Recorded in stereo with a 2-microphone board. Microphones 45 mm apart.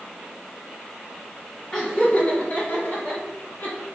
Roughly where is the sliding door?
No sliding door in this recording.